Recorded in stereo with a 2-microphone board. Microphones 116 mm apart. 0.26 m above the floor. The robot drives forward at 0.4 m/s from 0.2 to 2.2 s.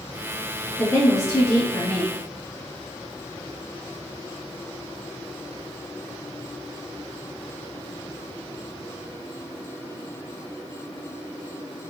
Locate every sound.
0.8 s a woman speaking: 30° left (ahead or behind), 1.5 m